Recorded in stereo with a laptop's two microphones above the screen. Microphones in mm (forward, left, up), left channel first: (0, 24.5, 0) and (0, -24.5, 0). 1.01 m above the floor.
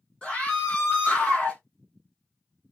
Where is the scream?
15° left (ahead or behind), 1.4 m.